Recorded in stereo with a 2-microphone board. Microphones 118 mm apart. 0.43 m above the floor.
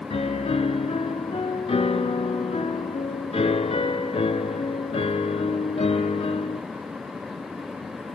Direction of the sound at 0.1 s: 65° left (ahead or behind).